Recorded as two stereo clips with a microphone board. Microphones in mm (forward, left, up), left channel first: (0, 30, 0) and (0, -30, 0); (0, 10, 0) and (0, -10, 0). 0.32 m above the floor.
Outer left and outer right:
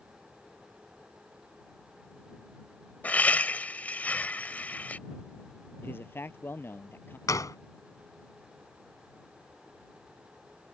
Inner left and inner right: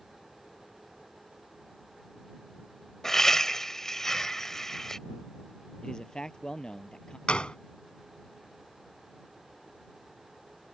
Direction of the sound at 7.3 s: 70° left (ahead or behind).